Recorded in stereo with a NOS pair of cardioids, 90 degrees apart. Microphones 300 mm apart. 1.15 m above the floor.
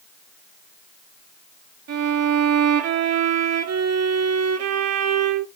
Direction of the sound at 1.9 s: 60° right.